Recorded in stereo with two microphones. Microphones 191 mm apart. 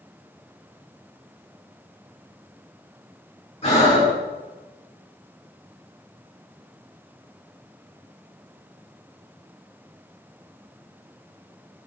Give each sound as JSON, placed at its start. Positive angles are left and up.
{"t": 3.6, "sound": "breathing", "side_deg": 35, "distance_m": 2.5}